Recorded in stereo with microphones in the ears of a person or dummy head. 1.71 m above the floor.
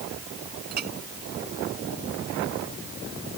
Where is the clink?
50° right (ahead or behind).